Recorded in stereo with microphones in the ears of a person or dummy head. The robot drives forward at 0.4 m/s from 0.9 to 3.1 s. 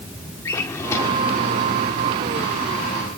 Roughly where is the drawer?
Centre.